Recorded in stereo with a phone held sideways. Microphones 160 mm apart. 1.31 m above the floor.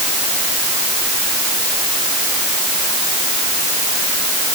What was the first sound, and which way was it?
Only background noise.